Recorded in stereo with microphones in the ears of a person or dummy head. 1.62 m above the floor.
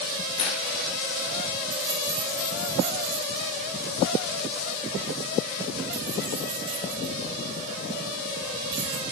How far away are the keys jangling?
About 6.5 m.